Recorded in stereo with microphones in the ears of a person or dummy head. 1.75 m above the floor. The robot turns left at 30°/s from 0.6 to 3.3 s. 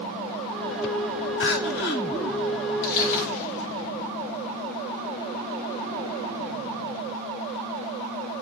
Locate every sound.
1.4 s crying: 55° left (ahead or behind), 1.8 m; by 2.0 s 50° left (ahead or behind), 1.8 m
2.8 s crushing: 55° left (ahead or behind), 8 m; by 3.7 s 40° left (ahead or behind), 8 m